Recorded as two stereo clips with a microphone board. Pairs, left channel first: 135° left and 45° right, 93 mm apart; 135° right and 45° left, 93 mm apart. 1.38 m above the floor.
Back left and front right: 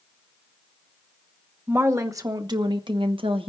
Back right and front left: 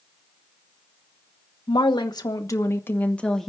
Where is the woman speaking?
110° right, 1.6 m; by 3.5 s 50° right, 1.3 m.